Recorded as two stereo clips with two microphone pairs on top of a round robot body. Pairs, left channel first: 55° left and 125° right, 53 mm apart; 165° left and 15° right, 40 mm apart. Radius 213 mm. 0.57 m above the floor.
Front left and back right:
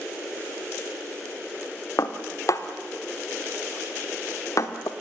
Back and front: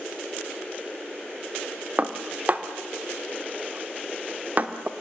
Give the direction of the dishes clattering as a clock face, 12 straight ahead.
11 o'clock.